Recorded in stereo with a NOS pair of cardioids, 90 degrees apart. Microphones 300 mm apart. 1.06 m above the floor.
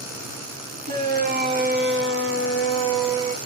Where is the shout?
30° right, 2 m; by 3.4 s 65° right, 1.2 m.